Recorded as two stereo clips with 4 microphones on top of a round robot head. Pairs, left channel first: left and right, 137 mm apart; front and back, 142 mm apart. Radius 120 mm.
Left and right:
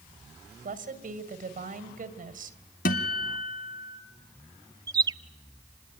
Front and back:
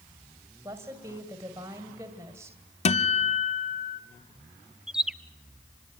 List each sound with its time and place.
0.6 s a woman speaking: 105° right, 2.5 m
2.9 s a guitar: 45° left, 0.8 m
4.9 s a bird: 100° right, 0.7 m